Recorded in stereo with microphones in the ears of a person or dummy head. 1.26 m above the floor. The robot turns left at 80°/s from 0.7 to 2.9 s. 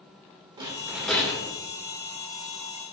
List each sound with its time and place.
0.6 s a rattle: 165° right, 2 m; by 1.5 s 130° left, 2 m